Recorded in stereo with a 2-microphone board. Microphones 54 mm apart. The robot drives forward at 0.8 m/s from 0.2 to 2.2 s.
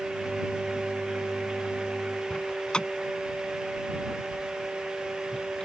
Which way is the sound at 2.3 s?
15° left (ahead or behind).